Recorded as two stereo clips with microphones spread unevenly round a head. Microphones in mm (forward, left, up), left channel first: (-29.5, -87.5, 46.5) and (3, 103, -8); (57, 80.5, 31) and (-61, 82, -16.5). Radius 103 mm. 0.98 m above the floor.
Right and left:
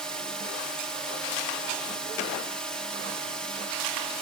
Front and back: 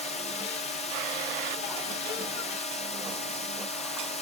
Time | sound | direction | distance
0.0 | a drone | 10° left | ?